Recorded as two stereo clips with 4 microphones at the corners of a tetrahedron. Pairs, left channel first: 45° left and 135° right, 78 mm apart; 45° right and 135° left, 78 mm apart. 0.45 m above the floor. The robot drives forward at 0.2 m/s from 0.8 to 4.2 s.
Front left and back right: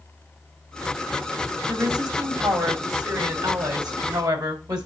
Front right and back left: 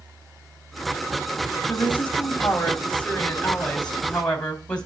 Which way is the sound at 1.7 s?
110° right.